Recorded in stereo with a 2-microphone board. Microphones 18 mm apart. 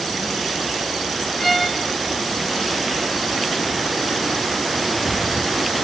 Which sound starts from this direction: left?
A violin, at 1.4 s.